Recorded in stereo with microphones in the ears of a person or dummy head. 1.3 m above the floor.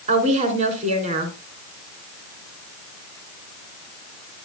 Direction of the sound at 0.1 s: 30° right (ahead or behind).